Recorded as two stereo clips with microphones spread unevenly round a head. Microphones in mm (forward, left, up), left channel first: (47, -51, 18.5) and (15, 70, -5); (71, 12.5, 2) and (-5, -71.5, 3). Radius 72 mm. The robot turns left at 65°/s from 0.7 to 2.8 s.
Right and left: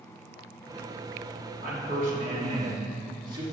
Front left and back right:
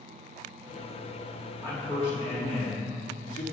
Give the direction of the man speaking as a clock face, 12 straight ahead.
8 o'clock.